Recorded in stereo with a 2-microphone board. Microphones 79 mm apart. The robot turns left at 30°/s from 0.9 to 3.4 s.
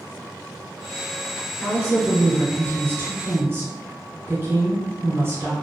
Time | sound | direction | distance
1.6 | a woman speaking | 30° right | 1.6 m